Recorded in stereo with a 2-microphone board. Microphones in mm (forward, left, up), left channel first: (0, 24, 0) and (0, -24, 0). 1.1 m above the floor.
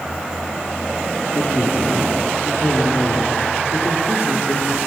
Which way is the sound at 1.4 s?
70° left (ahead or behind).